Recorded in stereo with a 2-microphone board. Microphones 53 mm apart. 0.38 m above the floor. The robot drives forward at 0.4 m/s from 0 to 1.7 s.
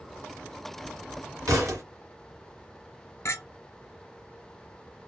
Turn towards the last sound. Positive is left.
turn(degrees=65)  # may be behind; listen again after turning